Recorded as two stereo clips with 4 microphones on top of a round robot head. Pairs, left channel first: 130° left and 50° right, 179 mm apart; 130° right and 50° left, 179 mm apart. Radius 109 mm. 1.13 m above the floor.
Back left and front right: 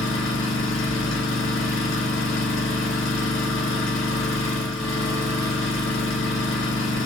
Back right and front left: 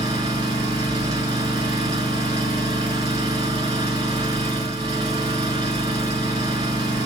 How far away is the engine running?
About 2 m.